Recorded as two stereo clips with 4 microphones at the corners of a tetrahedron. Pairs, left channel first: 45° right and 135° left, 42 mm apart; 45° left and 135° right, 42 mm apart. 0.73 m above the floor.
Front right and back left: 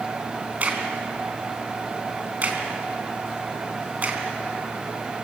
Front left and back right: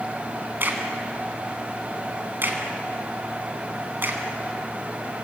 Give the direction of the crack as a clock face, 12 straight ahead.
6 o'clock.